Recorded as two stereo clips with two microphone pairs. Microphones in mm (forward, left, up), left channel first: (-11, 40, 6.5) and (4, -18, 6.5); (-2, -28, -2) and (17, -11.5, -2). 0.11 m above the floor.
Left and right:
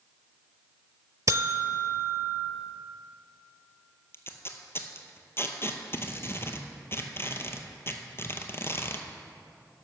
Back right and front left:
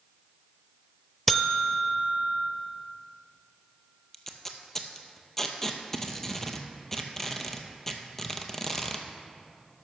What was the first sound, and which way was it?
A buzzer, 60° right.